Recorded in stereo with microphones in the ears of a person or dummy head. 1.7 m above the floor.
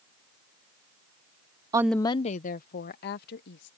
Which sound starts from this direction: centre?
A woman speaking, at 1.7 s.